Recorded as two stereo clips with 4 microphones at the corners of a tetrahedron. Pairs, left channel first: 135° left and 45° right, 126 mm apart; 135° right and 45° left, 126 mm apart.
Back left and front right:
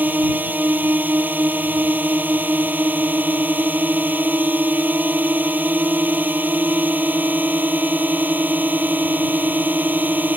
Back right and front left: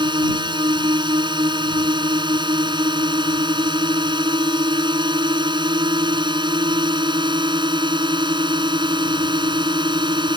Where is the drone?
25° left.